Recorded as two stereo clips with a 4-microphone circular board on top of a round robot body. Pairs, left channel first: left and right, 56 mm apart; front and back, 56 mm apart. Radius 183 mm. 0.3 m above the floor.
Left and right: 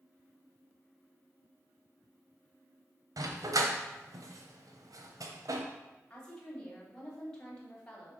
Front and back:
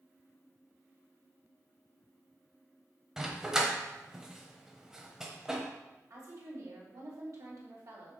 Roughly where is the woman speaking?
Behind.